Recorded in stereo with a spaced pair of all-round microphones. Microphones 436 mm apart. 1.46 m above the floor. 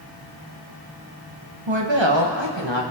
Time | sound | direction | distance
1.7 | a woman speaking | 85° right | 1.5 m